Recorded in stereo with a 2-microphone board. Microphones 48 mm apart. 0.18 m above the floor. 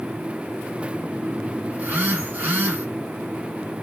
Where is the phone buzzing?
45° right (ahead or behind), 1.7 m.